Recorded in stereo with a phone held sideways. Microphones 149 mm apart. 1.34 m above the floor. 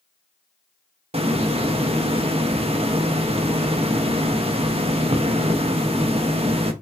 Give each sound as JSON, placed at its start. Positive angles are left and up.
{"t": 1.1, "sound": "a hiss", "side_deg": -40, "distance_m": 0.7}